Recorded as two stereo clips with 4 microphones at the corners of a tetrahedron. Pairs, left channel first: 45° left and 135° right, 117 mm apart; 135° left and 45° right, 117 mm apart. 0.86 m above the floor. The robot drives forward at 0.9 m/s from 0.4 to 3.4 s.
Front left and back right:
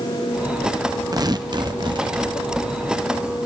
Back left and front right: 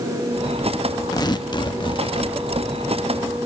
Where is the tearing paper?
175° left, 0.8 m; by 2.3 s straight behind, 1.7 m.